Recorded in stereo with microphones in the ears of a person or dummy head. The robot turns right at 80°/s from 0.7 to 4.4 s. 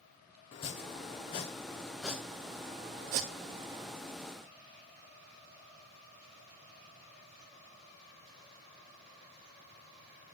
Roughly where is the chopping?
Left.